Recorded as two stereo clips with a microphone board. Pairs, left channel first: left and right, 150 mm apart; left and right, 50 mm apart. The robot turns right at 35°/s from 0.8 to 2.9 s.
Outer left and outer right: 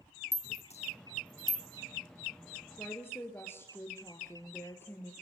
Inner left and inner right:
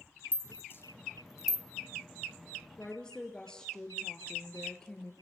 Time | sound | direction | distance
0.3 | a rattle | 45° left (ahead or behind) | 1.4 m
2.8 | a woman speaking | 20° left (ahead or behind) | 2.5 m